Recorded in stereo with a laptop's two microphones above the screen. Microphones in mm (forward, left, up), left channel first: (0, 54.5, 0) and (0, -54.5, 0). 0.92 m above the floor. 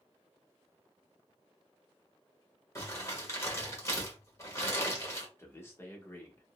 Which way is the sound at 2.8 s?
25° left (ahead or behind).